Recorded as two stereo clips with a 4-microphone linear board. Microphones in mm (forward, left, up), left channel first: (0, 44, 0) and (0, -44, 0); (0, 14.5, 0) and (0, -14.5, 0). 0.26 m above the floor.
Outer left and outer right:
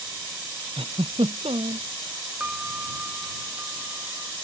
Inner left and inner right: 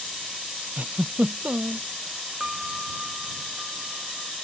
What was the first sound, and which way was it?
A giggle, 80° right.